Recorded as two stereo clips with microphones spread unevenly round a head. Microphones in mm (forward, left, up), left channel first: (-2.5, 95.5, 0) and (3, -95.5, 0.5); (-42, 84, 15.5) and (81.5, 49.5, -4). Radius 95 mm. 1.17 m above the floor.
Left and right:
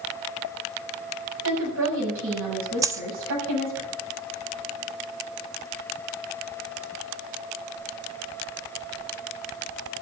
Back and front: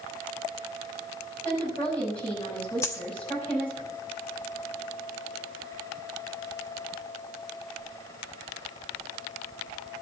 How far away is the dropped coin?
About 0.6 m.